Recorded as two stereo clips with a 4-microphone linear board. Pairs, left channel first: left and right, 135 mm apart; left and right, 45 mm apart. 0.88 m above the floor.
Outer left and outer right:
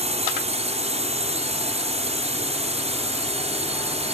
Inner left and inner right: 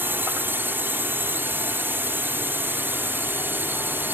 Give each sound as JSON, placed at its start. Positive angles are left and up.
{"t": 0.0, "sound": "a drone", "side_deg": -50}